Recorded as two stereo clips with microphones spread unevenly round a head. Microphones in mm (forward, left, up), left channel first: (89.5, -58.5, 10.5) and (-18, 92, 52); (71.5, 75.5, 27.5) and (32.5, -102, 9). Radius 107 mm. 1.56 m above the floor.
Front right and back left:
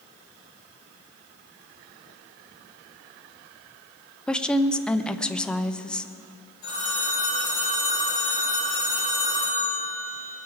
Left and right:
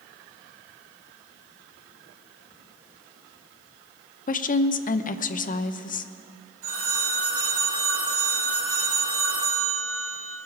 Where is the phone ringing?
130° right, 5.5 m.